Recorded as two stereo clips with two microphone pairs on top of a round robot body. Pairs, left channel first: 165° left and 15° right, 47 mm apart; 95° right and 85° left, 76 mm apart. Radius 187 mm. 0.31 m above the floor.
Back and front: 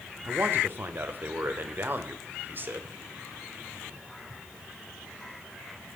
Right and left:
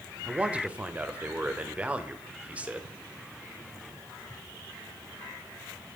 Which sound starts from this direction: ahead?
A man speaking, at 0.2 s.